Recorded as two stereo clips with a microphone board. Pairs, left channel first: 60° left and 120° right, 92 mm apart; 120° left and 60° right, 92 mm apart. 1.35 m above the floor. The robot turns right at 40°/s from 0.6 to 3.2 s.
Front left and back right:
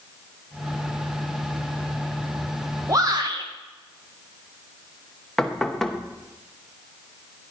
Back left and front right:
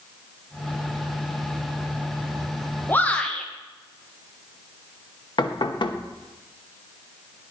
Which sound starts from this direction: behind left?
Knocking, at 5.4 s.